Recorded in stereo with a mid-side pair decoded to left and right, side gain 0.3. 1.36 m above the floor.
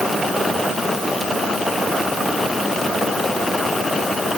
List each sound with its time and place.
Only background noise.